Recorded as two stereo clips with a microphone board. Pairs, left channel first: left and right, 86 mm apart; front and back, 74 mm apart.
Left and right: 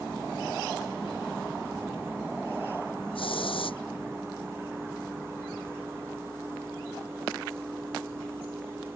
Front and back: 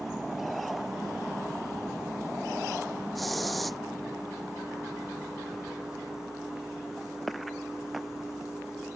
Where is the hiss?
90° left.